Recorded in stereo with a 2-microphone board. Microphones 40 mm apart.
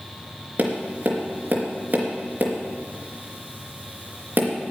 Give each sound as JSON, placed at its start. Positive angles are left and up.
{"t": 0.6, "sound": "tapping", "side_deg": -45, "distance_m": 3.0}